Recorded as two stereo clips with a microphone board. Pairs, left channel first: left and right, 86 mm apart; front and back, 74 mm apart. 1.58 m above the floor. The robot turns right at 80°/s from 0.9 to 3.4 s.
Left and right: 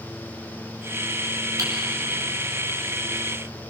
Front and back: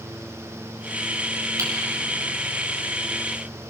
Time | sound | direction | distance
1.6 | typing on a keyboard | 135° right | 5.5 m